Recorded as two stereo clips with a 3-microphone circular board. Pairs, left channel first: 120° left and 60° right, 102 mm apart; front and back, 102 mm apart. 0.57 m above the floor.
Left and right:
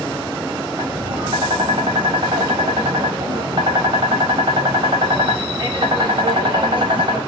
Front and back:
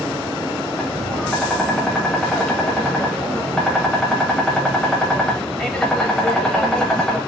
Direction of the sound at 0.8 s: 80° right.